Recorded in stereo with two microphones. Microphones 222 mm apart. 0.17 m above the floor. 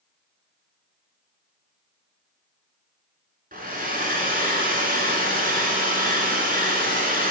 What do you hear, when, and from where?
3.5 s a hair dryer: 40° right (ahead or behind), 1.4 m